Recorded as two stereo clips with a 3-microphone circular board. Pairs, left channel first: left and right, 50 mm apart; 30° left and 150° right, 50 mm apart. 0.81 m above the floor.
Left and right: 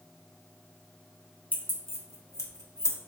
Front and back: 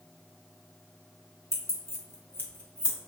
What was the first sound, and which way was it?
Keys jangling, 35° left.